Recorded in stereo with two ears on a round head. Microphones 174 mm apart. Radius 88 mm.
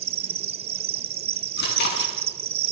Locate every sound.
0.0 s an insect: 30° right (ahead or behind), 0.8 m
1.6 s chewing: 60° left (ahead or behind), 6.5 m